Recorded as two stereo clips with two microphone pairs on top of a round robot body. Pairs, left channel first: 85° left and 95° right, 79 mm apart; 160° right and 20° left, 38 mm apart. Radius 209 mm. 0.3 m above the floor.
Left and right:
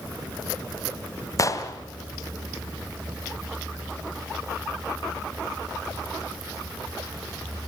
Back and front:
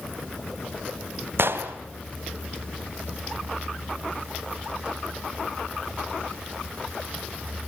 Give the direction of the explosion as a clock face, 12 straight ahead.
11 o'clock.